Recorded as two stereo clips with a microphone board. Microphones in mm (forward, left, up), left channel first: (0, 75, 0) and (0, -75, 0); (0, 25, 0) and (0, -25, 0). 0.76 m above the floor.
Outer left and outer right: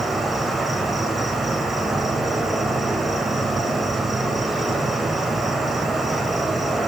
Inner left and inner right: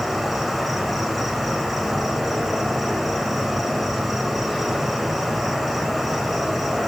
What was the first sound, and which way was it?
An insect, centre (ahead or behind).